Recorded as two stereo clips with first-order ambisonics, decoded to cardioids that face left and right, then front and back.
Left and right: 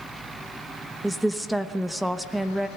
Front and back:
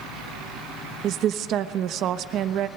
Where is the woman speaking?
175° right, 1.0 m.